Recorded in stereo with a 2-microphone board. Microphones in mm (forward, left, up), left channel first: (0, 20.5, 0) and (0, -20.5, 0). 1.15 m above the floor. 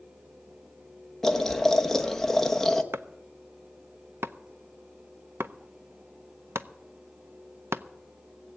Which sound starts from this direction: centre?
Boiling, at 1.2 s.